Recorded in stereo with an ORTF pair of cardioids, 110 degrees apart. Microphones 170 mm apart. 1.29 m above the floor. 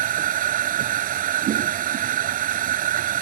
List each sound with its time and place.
0.0 s a machine running: 60° right